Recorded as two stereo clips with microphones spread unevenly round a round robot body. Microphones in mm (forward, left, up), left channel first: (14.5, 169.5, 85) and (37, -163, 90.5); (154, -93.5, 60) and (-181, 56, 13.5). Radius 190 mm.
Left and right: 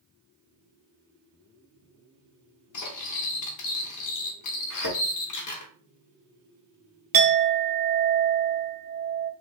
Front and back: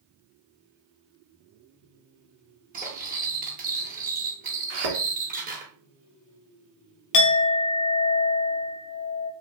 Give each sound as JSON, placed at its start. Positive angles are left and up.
{"t": 2.7, "sound": "cutlery clinking", "azimuth_deg": 100, "distance_m": 0.7}
{"t": 4.7, "sound": "a thud", "azimuth_deg": 135, "distance_m": 1.0}
{"t": 7.1, "sound": "a clink", "azimuth_deg": -40, "distance_m": 0.6}